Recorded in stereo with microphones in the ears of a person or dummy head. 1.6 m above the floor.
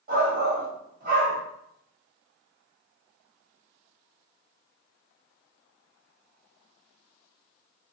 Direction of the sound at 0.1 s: 55° right (ahead or behind).